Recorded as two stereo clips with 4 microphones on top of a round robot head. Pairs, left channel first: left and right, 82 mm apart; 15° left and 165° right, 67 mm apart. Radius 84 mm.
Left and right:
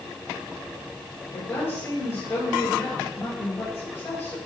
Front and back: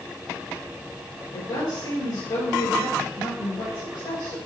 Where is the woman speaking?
30° left, 4 m.